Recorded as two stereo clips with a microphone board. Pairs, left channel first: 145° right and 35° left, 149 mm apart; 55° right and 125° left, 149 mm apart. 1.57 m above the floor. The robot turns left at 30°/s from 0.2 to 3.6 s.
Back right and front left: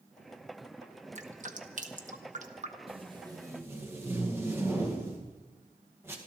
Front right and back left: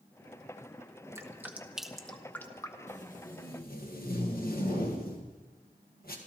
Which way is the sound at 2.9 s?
20° right.